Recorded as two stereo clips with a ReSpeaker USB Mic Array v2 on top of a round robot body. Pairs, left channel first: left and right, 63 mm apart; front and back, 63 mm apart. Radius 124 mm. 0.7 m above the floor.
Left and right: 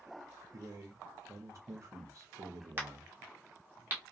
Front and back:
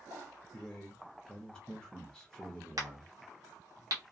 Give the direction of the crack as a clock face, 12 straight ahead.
5 o'clock.